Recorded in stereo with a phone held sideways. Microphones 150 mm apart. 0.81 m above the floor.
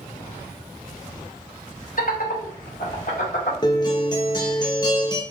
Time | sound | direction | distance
2.0 | laughter | 65° left (ahead or behind) | 1.0 m
3.6 | a guitar | 30° left (ahead or behind) | 0.6 m